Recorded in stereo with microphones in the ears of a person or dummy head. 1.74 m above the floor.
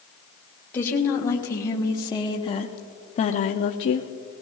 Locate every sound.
0.7 s a woman speaking: 15° left (ahead or behind), 1.8 m; by 4.1 s 40° left (ahead or behind), 0.7 m